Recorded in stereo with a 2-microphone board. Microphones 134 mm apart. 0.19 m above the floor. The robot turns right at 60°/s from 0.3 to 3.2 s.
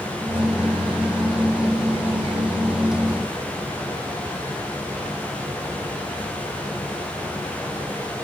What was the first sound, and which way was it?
Only background noise.